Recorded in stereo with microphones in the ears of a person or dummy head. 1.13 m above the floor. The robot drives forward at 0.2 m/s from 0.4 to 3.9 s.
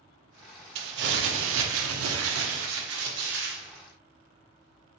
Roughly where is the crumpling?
Right.